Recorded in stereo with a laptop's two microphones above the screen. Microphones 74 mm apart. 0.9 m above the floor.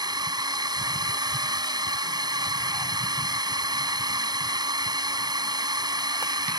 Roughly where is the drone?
Right.